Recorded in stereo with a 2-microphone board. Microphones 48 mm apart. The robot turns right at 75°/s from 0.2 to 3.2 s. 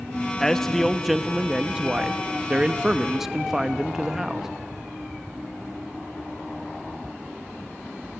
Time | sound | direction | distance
0.4 | a man speaking | 15° left (ahead or behind) | 0.7 m